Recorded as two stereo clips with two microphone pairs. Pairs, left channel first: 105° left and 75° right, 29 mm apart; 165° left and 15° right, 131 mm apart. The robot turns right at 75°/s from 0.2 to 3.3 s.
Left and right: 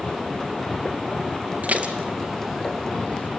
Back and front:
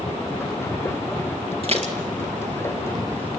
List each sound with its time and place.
1.6 s dishes clattering: 60° right, 2 m; by 3.3 s 65° left, 2 m